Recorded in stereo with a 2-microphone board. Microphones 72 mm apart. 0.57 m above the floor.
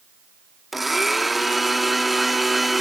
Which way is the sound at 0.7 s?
Centre (ahead or behind).